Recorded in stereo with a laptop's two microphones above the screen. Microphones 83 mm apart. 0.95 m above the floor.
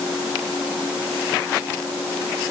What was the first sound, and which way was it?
Only background noise.